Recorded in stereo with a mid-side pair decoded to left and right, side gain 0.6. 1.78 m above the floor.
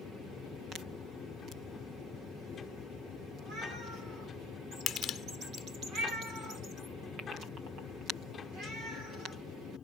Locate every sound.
0.0 s a machine running: 40° left
4.9 s crushing: 50° left